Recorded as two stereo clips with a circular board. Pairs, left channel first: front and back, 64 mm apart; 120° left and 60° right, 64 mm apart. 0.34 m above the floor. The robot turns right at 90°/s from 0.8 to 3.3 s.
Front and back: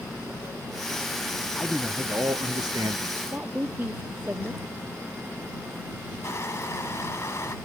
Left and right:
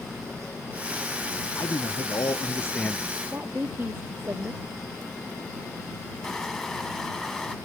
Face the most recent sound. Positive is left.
turn(degrees=35)